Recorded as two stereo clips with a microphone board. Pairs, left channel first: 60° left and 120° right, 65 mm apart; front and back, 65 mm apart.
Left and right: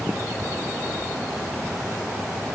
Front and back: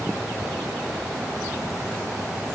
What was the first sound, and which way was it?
Only background noise.